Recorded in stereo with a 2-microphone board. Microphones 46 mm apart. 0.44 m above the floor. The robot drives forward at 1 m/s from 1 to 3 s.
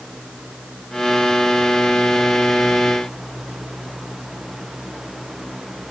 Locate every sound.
Only background noise.